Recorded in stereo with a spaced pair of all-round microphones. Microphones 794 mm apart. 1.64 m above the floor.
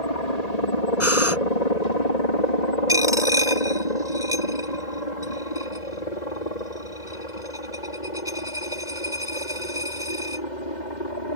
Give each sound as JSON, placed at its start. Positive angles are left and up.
{"t": 0.0, "sound": "a helicopter", "side_deg": 55}
{"t": 1.0, "sound": "breathing", "side_deg": 15}
{"t": 2.9, "sound": "a dropped coin", "side_deg": -5}